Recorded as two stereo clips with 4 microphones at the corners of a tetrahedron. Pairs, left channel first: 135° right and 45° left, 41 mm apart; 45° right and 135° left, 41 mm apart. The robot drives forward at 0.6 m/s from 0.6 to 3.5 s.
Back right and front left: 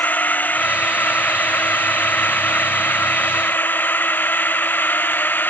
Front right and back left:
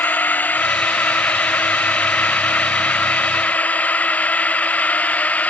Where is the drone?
90° right; by 5.5 s 95° right.